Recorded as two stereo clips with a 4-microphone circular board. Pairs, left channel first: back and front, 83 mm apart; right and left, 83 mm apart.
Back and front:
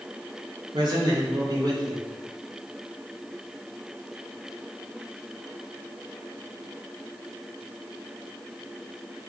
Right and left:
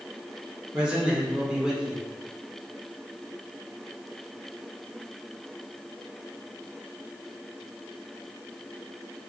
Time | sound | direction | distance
0.7 | a man speaking | 15° left | 1.9 m